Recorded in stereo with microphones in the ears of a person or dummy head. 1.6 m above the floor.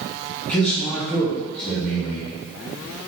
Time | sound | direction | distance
0.5 | a man speaking | 10° left (ahead or behind) | 1.4 m